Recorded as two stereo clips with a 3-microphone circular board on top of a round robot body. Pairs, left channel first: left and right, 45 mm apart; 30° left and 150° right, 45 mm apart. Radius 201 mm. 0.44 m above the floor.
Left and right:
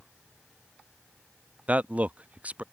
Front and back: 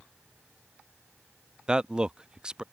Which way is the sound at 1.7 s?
95° right.